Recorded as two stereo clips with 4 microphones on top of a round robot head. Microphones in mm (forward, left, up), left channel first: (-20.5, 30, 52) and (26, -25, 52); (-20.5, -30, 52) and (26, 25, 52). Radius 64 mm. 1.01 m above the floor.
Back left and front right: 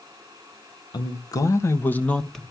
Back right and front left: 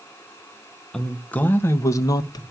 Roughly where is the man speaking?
Behind left.